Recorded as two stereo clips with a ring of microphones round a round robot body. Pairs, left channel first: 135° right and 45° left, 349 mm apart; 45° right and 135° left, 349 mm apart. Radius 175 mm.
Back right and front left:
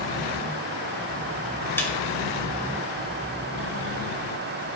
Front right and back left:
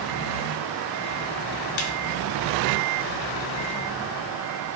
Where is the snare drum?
50° right, 2 m.